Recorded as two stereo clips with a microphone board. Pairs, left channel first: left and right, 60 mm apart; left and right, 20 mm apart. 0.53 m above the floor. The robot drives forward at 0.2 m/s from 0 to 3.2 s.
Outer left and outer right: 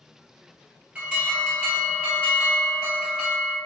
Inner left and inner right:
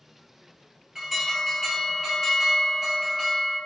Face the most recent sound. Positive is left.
turn(degrees=-15)  # may be behind; listen again after turning